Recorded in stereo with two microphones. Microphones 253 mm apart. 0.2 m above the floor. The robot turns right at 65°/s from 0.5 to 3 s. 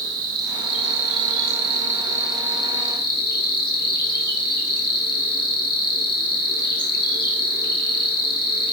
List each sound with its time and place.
0.0 s an insect: 120° right, 1.5 m; by 8.7 s 45° left, 1.5 m